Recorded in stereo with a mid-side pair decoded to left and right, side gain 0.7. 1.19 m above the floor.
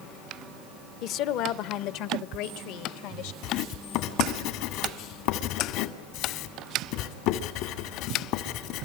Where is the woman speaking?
55° left, 1.1 m; by 3.3 s 75° left, 2 m.